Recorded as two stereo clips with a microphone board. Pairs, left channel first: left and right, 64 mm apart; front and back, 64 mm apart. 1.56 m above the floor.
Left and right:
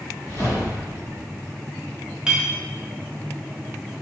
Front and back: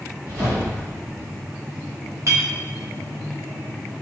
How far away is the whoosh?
About 1.1 m.